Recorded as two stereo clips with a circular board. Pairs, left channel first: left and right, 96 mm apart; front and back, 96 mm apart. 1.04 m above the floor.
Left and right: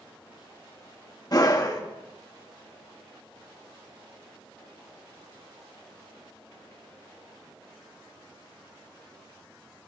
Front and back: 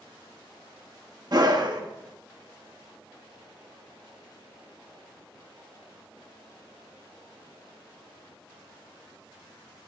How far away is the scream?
About 1.3 m.